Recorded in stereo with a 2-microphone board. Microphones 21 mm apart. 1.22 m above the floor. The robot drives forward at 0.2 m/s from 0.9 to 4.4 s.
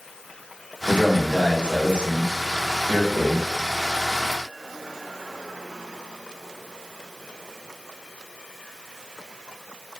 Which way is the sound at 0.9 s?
75° right (ahead or behind).